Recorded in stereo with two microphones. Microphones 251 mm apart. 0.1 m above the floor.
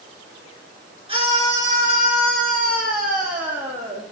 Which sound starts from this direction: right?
A scream, at 1.1 s.